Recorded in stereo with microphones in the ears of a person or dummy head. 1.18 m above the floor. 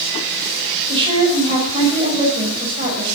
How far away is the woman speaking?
About 5 m.